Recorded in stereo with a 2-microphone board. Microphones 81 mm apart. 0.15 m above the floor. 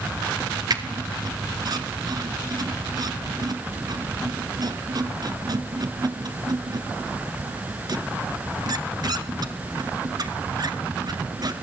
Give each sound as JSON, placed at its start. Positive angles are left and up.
{"t": 0.7, "sound": "a squeak", "side_deg": -50, "distance_m": 1.6}